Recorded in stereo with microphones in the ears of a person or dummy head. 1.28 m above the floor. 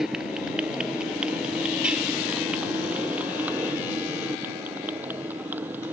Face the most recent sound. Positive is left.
turn(degrees=-10)  # may be behind; listen again after turning